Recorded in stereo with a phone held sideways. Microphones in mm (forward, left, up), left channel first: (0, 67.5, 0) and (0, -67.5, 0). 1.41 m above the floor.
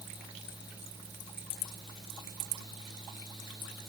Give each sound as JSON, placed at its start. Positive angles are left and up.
{"t": 0.0, "sound": "a fan", "side_deg": 30}